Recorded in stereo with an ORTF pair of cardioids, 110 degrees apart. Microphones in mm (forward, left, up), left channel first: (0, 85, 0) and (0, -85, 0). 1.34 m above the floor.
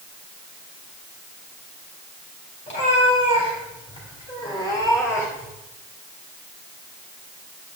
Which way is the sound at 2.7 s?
50° left.